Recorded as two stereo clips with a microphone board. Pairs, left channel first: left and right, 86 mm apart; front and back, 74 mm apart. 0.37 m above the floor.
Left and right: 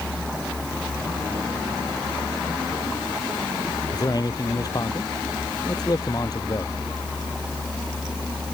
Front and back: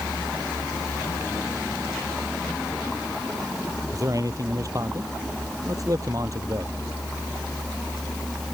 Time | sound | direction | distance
3.9 | a man speaking | 135° left | ?